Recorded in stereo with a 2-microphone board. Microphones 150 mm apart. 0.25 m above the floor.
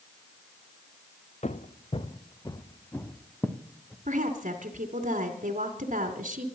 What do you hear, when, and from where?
1.4 s footsteps: 50° left (ahead or behind), 1.4 m; by 4.0 s centre (ahead or behind), 2 m
4.0 s a woman speaking: 60° right (ahead or behind), 2 m